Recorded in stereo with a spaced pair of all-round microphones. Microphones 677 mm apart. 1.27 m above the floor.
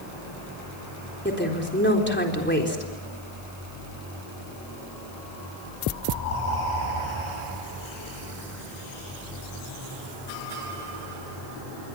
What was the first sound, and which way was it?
A woman speaking, 15° left (ahead or behind).